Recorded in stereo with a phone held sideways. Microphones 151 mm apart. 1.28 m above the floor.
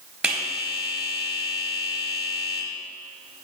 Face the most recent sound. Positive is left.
turn(degrees=-5)  # may be behind; listen again after turning